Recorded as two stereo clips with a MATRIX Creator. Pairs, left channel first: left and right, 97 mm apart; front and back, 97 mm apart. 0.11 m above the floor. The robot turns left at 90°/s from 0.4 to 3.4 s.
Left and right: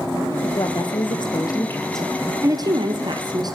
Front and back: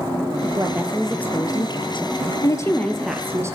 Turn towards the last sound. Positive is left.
turn(degrees=-125)